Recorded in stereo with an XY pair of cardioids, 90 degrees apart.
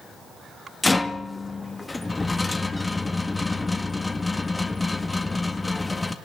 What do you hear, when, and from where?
0.8 s a rattle: 20° left, 1.7 m